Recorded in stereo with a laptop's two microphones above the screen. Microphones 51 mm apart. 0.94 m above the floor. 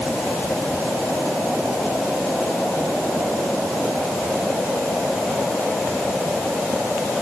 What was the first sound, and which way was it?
Only background noise.